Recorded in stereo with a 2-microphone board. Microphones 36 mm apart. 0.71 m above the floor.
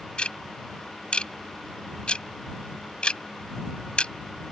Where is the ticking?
30° left (ahead or behind).